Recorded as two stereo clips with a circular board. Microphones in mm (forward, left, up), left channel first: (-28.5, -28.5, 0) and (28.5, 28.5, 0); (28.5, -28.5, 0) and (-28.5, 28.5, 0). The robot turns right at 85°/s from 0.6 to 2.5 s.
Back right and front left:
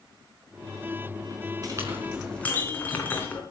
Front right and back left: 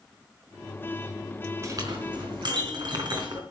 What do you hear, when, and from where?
1.6 s a clink: 85° left, 4 m; by 3.4 s 155° left, 4 m